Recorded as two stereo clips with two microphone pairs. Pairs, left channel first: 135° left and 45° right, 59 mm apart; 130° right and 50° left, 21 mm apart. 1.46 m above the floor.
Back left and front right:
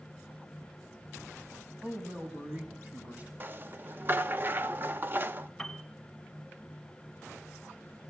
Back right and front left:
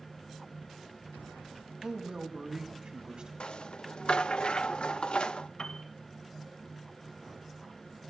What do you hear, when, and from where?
1.8 s a man speaking: 15° left, 4.5 m
3.4 s a rattle: 100° right, 0.5 m
5.6 s a piano: 145° right, 1.8 m